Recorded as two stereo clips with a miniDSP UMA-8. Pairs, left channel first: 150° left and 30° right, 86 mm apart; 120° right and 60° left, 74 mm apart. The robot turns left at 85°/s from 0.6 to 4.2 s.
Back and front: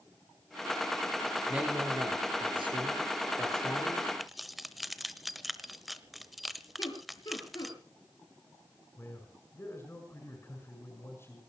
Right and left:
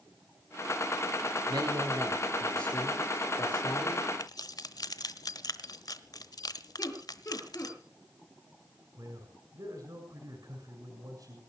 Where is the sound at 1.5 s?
55° left, 6 m; by 4.0 s 165° right, 6 m.